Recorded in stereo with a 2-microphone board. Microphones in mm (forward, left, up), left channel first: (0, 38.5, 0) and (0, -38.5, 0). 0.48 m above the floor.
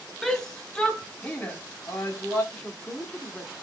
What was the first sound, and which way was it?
A shout, 5° left (ahead or behind).